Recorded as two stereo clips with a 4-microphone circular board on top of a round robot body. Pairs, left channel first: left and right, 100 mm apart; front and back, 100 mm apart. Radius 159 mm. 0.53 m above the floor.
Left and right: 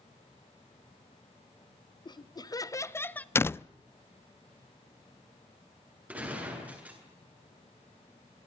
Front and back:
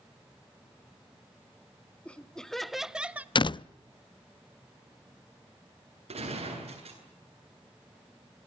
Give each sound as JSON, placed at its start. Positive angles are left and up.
{"t": 2.0, "sound": "laughter", "azimuth_deg": 75, "distance_m": 1.8}
{"t": 3.4, "sound": "a door slam", "azimuth_deg": 25, "distance_m": 0.5}
{"t": 6.1, "sound": "a gunshot", "azimuth_deg": -165, "distance_m": 9.0}